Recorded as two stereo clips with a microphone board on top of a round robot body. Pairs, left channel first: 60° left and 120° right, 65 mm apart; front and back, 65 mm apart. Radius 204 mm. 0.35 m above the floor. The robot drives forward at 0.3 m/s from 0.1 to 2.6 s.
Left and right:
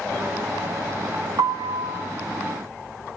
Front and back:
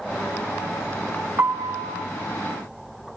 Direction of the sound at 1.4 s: 135° right.